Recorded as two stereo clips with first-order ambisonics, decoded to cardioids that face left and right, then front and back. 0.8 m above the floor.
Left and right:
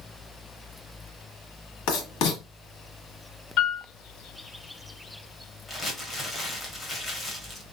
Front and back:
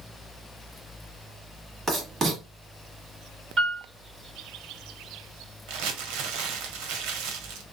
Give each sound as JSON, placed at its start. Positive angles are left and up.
{"t": 1.9, "sound": "writing", "azimuth_deg": 110, "distance_m": 1.3}
{"t": 3.6, "sound": "a piano", "azimuth_deg": 120, "distance_m": 1.8}
{"t": 5.7, "sound": "crumpling", "azimuth_deg": 165, "distance_m": 1.0}